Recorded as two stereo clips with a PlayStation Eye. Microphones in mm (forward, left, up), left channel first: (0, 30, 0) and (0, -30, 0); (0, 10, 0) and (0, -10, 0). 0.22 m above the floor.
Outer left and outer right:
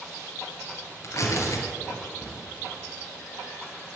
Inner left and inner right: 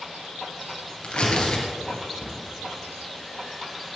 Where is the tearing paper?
55° left (ahead or behind), 2.5 m.